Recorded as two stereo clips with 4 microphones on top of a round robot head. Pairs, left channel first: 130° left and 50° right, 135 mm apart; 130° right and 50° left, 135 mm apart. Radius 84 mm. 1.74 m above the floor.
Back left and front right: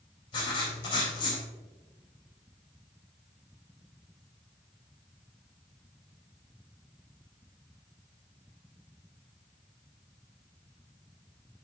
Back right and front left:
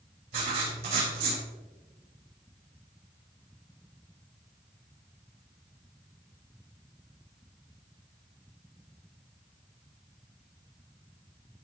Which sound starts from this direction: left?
Writing, at 0.3 s.